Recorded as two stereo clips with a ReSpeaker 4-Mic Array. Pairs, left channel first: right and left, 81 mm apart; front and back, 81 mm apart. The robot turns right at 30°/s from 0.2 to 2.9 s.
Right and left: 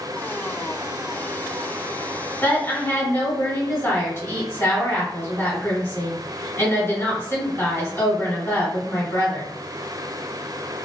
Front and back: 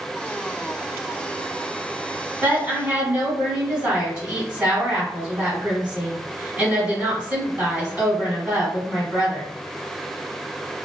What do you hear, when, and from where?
2.4 s a woman speaking: 130° right, 1.8 m; by 9.5 s 115° right, 1.8 m